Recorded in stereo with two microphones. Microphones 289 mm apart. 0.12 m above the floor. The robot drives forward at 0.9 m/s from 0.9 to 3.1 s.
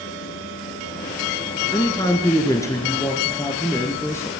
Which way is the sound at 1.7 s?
15° left (ahead or behind).